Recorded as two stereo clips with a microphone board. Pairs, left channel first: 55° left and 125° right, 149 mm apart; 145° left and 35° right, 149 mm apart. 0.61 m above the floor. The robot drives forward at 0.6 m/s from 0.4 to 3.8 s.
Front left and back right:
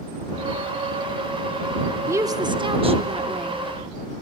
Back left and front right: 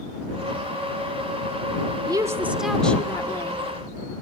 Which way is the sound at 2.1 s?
70° right.